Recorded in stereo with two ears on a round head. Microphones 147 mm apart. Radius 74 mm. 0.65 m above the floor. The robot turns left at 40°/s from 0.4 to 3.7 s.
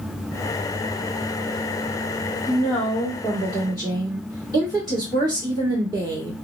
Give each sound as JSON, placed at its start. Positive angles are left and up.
{"t": 2.5, "sound": "a woman speaking", "azimuth_deg": 20, "distance_m": 1.6}